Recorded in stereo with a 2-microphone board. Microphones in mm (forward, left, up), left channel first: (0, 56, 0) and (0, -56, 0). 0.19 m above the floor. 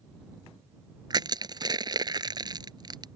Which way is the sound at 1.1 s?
35° right (ahead or behind).